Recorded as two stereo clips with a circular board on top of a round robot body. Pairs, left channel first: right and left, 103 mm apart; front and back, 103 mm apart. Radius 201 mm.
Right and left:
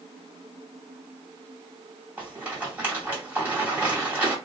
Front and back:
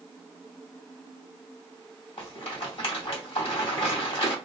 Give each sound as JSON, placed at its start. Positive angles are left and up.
{"t": 2.2, "sound": "a rattle", "azimuth_deg": 15, "distance_m": 2.0}